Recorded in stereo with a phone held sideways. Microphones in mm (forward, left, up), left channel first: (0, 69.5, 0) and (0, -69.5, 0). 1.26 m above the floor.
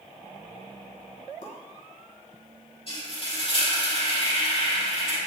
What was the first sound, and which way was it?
A pop, 65° left (ahead or behind).